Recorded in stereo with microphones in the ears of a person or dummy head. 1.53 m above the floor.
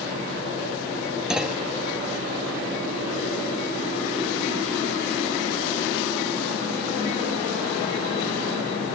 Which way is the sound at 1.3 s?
5° right (ahead or behind).